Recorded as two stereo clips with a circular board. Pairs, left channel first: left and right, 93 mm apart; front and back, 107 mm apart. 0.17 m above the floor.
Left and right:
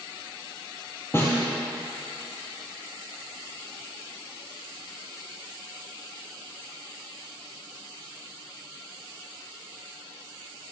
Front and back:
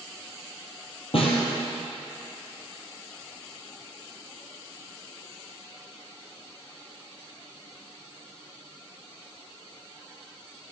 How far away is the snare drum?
About 1.9 m.